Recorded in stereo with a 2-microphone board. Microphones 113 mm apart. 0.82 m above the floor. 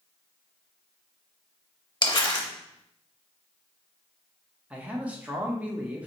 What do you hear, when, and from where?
2.0 s crumpling: 40° left (ahead or behind), 0.8 m
4.7 s a man speaking: 10° right (ahead or behind), 0.7 m